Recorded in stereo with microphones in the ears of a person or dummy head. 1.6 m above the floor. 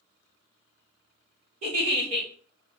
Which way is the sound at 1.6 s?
35° right (ahead or behind).